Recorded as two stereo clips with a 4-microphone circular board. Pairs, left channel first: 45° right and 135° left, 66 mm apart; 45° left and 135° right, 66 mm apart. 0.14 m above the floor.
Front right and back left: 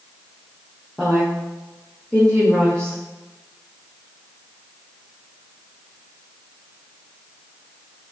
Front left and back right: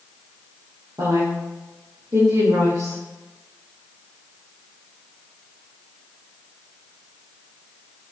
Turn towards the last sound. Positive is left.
turn(degrees=-125)